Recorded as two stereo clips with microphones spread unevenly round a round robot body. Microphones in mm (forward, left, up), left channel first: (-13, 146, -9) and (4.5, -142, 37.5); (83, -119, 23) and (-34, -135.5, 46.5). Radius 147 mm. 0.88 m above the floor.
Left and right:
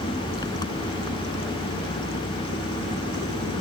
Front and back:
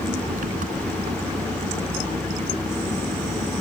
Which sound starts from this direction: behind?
An engine running, at 0.0 s.